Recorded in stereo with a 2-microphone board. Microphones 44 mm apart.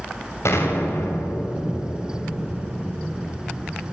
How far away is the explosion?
About 6.5 m.